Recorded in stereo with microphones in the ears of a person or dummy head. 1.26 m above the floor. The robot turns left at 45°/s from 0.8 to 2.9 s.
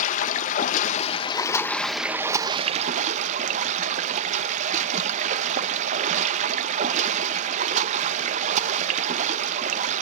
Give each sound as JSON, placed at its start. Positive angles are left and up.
{"t": 0.0, "sound": "running water", "azimuth_deg": 50, "distance_m": 0.8}